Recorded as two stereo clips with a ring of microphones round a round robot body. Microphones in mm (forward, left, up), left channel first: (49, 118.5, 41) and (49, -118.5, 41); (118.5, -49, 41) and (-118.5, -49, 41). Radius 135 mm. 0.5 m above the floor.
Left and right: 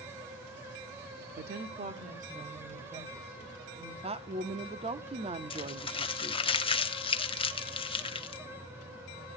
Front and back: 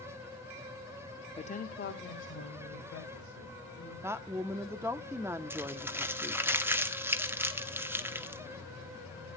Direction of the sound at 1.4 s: 65° right.